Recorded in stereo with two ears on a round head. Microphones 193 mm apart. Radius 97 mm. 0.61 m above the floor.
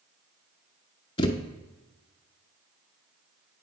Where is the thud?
25° left (ahead or behind), 0.6 m.